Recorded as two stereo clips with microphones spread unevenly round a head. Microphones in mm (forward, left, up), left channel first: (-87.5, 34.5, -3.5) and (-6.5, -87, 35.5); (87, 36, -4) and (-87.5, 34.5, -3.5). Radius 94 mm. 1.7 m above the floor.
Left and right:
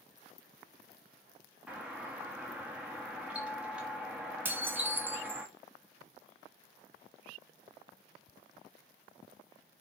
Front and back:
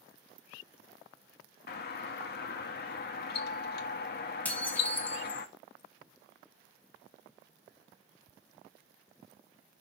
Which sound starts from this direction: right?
Dishes clattering, at 4.5 s.